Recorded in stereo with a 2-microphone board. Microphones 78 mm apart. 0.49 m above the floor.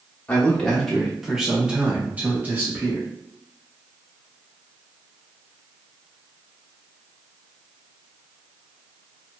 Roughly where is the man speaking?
Centre.